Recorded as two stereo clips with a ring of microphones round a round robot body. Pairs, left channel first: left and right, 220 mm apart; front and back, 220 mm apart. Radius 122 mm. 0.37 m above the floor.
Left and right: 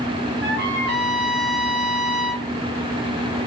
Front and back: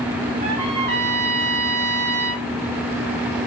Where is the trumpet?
120° right, 3 m.